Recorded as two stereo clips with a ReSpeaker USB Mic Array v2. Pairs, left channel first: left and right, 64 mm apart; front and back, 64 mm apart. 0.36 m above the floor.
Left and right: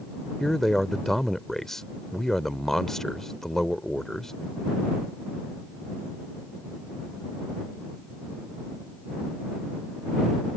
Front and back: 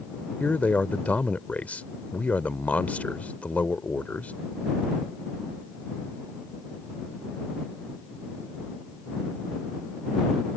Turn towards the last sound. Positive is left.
turn(degrees=15)